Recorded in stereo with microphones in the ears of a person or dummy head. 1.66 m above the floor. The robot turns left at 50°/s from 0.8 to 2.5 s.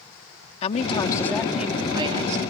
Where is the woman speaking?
35° left; by 2.5 s 45° right.